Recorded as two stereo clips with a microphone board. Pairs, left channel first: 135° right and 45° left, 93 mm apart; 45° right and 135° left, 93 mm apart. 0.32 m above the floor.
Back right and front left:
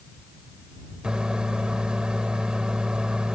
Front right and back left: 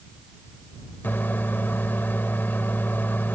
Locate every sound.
1.0 s a microwave: 20° right